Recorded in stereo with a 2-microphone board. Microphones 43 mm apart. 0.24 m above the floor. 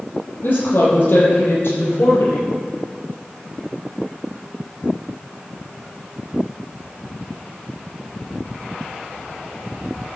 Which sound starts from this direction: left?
A woman speaking, at 0.4 s.